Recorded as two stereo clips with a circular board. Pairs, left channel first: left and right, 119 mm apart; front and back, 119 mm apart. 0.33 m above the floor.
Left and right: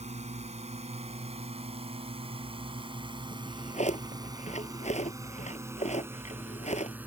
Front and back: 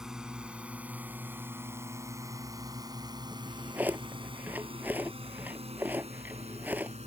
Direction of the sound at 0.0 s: 95° right.